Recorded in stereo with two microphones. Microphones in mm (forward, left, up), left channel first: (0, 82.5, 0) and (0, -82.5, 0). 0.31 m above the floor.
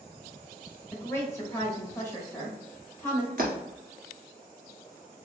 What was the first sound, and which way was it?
A woman speaking, 15° left (ahead or behind).